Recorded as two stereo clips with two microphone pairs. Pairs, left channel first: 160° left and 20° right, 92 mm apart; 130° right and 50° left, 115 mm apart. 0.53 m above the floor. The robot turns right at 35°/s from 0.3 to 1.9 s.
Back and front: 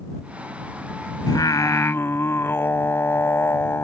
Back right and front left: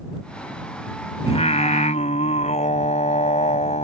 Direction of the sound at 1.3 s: 160° right.